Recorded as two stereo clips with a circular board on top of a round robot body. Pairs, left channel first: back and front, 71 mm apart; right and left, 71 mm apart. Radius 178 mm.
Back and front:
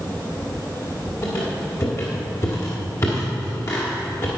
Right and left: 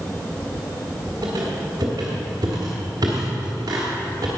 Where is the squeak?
130° left, 1.1 m.